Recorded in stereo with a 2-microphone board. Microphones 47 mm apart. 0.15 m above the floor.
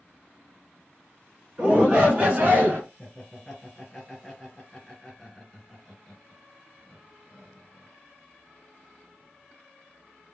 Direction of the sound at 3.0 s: 10° left (ahead or behind).